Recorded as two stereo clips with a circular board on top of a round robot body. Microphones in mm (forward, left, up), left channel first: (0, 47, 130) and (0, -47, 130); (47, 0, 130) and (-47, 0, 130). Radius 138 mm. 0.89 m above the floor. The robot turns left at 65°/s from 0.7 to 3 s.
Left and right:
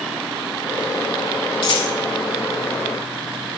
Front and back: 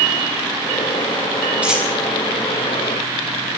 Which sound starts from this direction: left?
A dropped coin, at 1.6 s.